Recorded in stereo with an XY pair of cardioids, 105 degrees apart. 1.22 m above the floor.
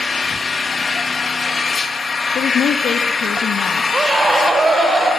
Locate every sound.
0.0 s an engine running: 30° left, 1.7 m
2.4 s a woman speaking: 65° left, 1.3 m
3.9 s a scream: 25° right, 4 m